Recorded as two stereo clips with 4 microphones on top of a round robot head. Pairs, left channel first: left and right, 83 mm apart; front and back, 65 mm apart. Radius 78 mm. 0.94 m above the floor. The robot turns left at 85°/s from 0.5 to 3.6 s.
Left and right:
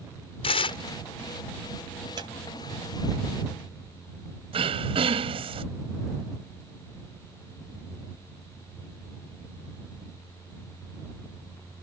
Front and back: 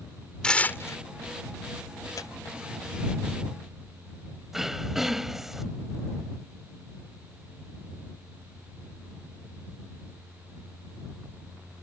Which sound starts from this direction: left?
Tearing paper, at 0.4 s.